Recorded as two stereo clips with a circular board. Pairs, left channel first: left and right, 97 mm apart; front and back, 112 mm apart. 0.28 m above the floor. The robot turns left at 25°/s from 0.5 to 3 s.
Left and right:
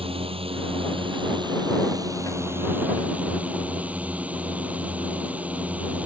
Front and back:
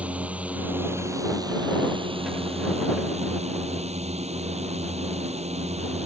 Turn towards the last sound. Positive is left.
turn(degrees=-165)